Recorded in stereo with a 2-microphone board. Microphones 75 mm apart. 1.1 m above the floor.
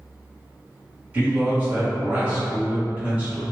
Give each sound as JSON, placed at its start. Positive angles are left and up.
{"t": 1.1, "sound": "a man speaking", "side_deg": -20, "distance_m": 1.5}